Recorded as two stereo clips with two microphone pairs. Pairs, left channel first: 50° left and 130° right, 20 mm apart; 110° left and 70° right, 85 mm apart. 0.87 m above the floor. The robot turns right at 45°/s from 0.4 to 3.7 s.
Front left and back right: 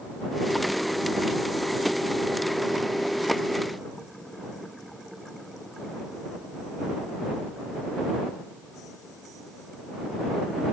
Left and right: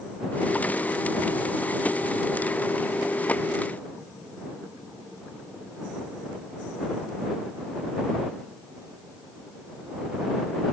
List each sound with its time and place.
Only background noise.